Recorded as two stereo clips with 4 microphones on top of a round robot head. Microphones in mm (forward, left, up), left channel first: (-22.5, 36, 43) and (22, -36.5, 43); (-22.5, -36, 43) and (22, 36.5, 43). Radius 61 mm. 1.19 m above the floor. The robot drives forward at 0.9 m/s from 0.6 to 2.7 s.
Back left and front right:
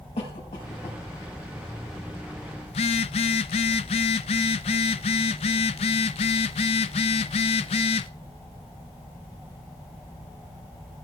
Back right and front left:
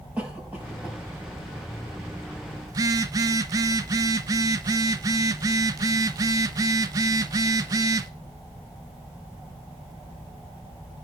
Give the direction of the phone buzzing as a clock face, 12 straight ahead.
8 o'clock.